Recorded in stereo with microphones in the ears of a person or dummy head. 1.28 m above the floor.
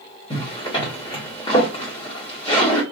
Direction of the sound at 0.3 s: 30° left (ahead or behind).